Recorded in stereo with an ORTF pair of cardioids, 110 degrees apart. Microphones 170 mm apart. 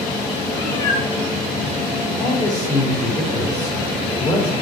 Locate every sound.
0.5 s a cat meowing: 30° left, 3.5 m
2.2 s a man speaking: 20° left, 3.5 m